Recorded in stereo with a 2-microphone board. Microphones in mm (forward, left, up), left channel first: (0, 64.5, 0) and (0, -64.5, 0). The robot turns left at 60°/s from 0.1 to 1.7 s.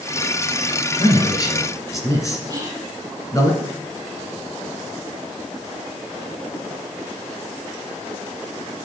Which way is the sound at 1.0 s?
40° left (ahead or behind).